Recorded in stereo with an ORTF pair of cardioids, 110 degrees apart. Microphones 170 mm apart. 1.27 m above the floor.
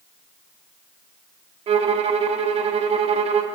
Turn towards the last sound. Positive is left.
turn(degrees=-40)